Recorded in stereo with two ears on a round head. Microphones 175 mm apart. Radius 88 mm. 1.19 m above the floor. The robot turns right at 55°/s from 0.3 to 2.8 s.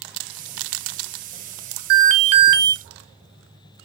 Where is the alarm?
55° right, 1.4 m; by 2.7 s 10° right, 1.4 m.